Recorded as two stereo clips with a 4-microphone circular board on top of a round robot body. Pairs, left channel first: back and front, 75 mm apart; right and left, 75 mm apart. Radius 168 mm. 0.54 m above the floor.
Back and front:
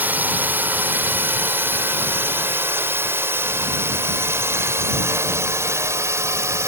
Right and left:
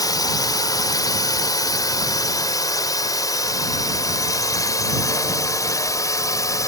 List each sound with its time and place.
0.0 s a drone: 65° right; by 6.7 s 50° right